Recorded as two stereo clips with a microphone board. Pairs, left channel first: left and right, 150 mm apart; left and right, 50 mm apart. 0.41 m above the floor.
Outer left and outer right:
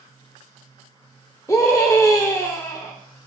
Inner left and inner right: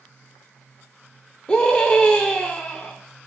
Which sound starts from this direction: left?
A scream, at 1.5 s.